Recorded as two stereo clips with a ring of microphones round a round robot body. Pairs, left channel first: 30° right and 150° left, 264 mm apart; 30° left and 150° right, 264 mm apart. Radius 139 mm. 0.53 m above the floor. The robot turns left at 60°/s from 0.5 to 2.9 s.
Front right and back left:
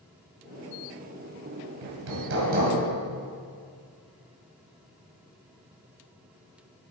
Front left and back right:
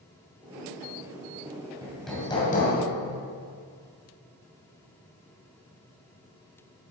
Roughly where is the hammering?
Behind left.